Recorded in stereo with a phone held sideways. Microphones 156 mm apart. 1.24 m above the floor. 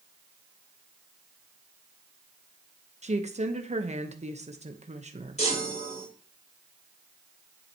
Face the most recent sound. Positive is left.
turn(degrees=45)  # may be behind; listen again after turning